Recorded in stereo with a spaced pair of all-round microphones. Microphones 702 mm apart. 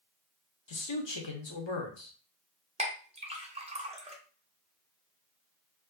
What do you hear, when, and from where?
0.7 s a man speaking: 40° left (ahead or behind), 0.6 m
2.8 s a clink: 10° right (ahead or behind), 0.5 m